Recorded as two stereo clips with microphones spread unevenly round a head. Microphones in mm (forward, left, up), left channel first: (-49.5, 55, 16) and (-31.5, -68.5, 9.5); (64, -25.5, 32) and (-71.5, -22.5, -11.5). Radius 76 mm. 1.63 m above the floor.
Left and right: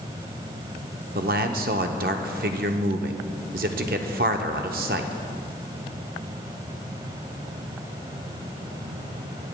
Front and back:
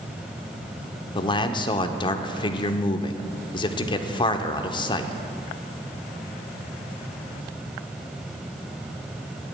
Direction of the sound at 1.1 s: 50° right.